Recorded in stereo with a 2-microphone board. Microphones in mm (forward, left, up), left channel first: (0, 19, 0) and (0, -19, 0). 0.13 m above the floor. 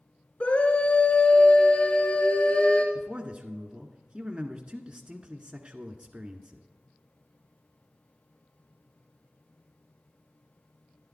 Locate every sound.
0.4 s a scream: 35° left (ahead or behind), 1.6 m
3.0 s a man speaking: 35° right (ahead or behind), 1.2 m